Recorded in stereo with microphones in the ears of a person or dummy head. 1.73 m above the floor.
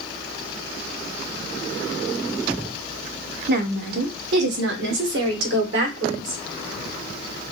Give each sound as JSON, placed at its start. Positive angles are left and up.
{"t": 3.5, "sound": "a woman speaking", "side_deg": -60, "distance_m": 1.1}